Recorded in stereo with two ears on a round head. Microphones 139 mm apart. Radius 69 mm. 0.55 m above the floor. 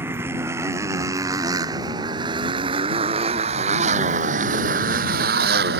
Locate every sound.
0.0 s a motorcycle: 15° right (ahead or behind); by 5.8 s 70° right (ahead or behind)